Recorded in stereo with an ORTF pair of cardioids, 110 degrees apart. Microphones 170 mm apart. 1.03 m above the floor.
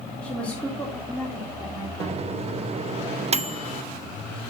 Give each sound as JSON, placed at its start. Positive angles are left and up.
{"t": 0.2, "sound": "a woman speaking", "azimuth_deg": 5, "distance_m": 3.5}
{"t": 2.0, "sound": "a microwave", "azimuth_deg": -40, "distance_m": 0.7}